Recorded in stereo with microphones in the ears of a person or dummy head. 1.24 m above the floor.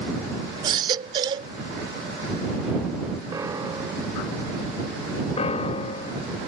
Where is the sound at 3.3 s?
10° right (ahead or behind).